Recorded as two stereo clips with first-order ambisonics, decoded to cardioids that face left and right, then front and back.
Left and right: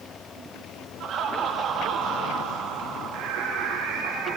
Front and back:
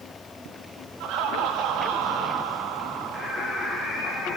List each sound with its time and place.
1.0 s laughter: 145° right, 3 m
3.1 s singing: 90° right, 9 m